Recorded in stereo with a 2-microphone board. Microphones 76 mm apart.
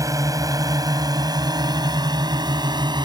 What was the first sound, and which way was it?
A drone, 50° right (ahead or behind).